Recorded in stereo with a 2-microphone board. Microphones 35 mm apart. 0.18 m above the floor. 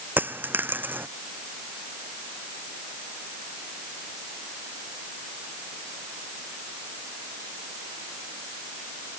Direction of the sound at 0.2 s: 70° right (ahead or behind).